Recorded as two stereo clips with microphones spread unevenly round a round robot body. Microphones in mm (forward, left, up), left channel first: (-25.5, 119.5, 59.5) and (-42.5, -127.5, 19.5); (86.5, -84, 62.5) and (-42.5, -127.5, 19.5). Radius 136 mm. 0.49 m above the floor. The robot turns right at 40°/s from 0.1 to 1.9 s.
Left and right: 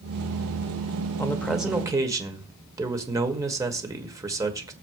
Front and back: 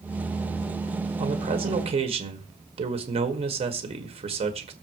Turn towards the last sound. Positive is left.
turn(degrees=-165)